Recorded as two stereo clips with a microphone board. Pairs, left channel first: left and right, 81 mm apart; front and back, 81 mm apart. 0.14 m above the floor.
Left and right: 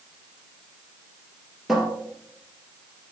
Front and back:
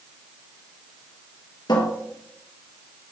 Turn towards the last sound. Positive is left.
turn(degrees=-5)